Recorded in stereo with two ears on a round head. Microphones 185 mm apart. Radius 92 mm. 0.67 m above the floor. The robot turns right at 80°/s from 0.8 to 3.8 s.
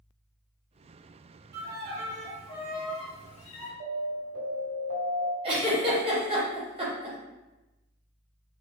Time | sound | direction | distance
1.5 | a violin | 55° right | 0.6 m
3.8 | an alarm | 50° right (ahead or behind) | 1.6 m
5.4 | a giggle | 25° right (ahead or behind) | 1.0 m